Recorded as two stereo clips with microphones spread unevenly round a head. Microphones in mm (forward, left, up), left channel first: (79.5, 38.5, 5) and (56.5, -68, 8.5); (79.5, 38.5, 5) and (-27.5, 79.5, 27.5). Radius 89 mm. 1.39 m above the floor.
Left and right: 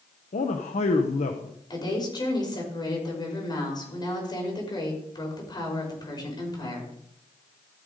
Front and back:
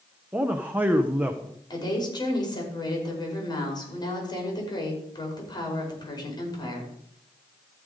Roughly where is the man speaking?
Left.